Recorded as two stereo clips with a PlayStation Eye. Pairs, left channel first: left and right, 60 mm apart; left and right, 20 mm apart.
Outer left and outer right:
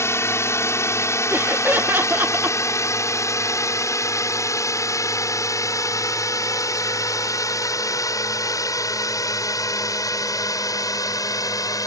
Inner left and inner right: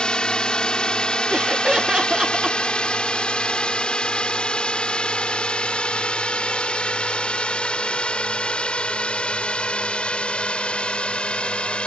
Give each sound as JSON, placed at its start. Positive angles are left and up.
{"t": 0.0, "sound": "a drone", "side_deg": 50}
{"t": 1.3, "sound": "laughter", "side_deg": -35}